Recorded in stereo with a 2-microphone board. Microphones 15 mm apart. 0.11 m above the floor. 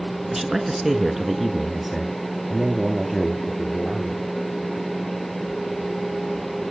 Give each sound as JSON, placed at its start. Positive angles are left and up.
{"t": 0.3, "sound": "a man speaking", "side_deg": -25, "distance_m": 1.2}